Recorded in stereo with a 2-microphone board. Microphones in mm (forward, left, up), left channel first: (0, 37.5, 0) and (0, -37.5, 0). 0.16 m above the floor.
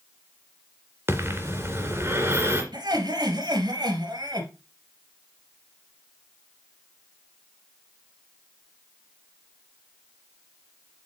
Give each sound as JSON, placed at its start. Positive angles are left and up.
{"t": 1.1, "sound": "breathing", "side_deg": -35, "distance_m": 2.0}
{"t": 2.7, "sound": "laughter", "side_deg": -65, "distance_m": 3.0}